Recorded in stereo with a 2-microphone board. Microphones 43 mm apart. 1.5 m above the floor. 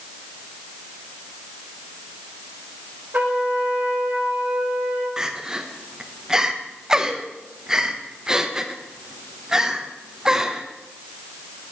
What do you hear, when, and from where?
3.1 s a trumpet: 45° right (ahead or behind), 1.9 m
5.2 s crying: 10° right (ahead or behind), 0.7 m